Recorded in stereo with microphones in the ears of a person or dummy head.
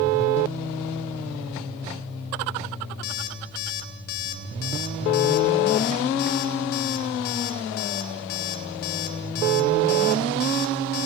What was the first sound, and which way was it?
An alarm clock, 50° left (ahead or behind).